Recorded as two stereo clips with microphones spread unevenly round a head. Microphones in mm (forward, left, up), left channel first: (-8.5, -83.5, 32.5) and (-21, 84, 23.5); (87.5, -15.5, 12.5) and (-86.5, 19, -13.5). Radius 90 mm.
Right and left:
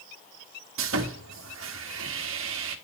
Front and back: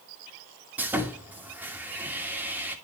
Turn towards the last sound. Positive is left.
turn(degrees=85)